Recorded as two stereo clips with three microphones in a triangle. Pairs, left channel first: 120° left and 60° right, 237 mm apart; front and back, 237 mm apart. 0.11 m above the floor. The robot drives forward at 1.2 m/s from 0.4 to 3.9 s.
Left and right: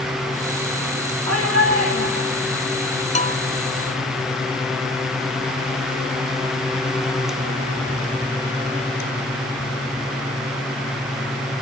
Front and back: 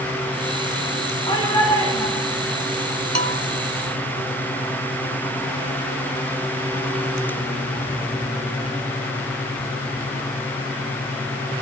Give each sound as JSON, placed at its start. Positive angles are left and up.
{"t": 1.3, "sound": "a shout", "azimuth_deg": -70, "distance_m": 8.5}
{"t": 3.1, "sound": "a bell", "azimuth_deg": 175, "distance_m": 0.6}